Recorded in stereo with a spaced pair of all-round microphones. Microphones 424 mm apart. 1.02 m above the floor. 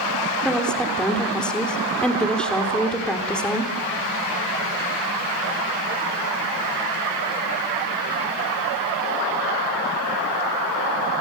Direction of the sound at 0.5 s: Centre (ahead or behind).